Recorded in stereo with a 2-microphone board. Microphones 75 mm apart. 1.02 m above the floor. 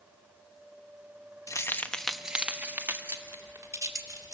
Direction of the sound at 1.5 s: 45° left (ahead or behind).